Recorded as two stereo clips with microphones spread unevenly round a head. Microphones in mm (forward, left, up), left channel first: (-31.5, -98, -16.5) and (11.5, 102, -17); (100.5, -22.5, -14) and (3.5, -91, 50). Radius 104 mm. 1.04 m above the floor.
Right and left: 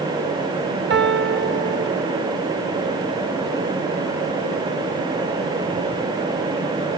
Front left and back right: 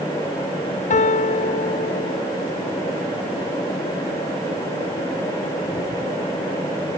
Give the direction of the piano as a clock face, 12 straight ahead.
11 o'clock.